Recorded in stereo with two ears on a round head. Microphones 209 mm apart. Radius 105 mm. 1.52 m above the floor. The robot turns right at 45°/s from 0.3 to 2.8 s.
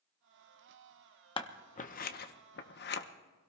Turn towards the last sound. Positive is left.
turn(degrees=45)  # may be behind; listen again after turning